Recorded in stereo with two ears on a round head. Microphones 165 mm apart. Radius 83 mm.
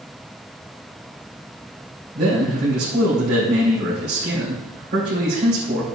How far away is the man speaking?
About 3 m.